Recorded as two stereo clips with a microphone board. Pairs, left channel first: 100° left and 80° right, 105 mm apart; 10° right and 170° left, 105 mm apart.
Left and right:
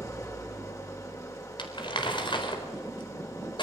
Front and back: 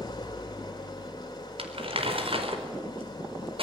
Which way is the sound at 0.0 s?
40° left.